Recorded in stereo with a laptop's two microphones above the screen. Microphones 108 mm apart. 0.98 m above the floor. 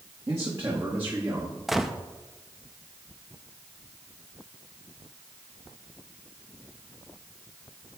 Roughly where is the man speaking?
Right.